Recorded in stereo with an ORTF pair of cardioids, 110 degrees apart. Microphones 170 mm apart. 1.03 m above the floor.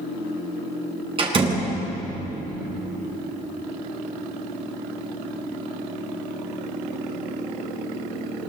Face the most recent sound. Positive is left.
turn(degrees=-30)